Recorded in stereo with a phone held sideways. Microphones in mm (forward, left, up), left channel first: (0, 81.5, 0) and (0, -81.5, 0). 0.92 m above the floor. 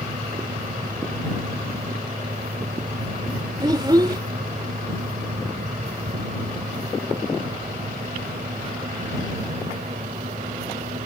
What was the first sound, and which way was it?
A fan, 55° right (ahead or behind).